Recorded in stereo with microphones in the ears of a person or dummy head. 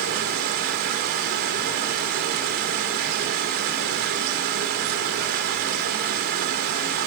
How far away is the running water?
About 1.9 m.